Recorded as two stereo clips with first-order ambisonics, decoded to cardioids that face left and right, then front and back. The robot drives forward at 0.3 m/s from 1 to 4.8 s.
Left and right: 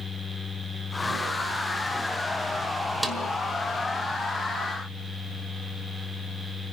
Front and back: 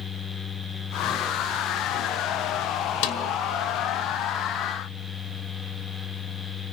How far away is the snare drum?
About 1.7 m.